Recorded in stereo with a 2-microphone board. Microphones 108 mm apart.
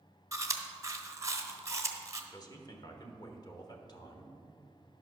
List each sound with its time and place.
0.3 s chewing: 30° right (ahead or behind), 1.0 m
2.3 s a man speaking: 40° left (ahead or behind), 1.3 m